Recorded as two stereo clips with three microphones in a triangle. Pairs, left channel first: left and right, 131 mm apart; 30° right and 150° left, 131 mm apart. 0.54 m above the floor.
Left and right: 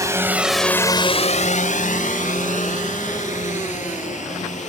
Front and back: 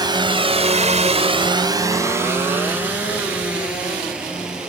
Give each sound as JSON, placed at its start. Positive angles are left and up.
{"t": 0.0, "sound": "a drone", "azimuth_deg": -155}